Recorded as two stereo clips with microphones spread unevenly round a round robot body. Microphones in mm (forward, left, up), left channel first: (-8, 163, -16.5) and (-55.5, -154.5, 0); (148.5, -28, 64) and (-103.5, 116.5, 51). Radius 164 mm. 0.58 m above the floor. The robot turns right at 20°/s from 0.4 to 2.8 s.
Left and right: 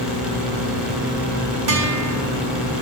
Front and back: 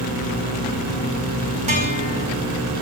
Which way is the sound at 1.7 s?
140° right.